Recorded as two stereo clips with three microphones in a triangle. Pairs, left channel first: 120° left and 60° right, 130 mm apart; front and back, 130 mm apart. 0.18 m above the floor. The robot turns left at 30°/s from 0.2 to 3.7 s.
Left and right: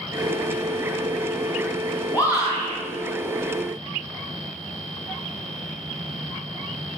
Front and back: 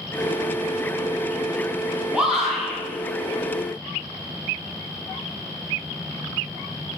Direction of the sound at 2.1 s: 110° left.